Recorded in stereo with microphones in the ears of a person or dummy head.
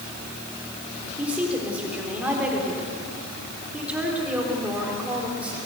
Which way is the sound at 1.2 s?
10° right (ahead or behind).